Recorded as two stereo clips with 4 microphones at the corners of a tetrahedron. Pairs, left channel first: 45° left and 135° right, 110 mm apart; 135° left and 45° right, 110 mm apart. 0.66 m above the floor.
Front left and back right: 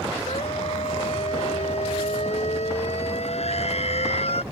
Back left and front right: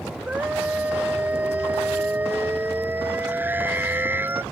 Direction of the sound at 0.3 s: 35° left.